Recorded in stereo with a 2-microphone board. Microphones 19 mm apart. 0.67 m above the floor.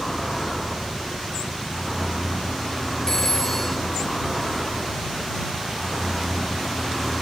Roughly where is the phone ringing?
Centre.